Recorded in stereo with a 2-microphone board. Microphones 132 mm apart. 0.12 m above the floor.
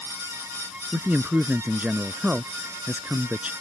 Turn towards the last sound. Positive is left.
turn(degrees=-10)  # may be behind; listen again after turning